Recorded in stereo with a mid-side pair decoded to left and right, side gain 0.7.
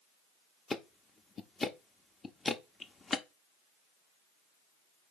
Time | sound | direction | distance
0.7 | ticking | 20° left | 0.6 m